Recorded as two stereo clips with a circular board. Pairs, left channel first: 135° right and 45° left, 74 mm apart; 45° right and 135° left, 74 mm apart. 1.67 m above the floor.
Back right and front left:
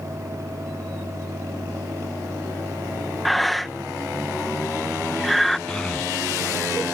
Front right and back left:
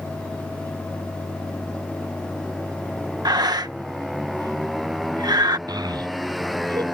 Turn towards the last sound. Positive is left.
turn(degrees=145)